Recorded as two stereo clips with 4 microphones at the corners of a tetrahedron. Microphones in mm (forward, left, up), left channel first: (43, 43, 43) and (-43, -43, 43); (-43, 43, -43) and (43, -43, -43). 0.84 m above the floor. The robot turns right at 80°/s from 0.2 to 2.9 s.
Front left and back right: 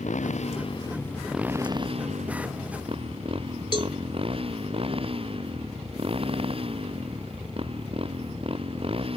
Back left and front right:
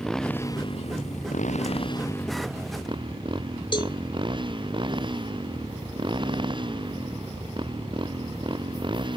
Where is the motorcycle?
50° left; by 9.2 s 95° right.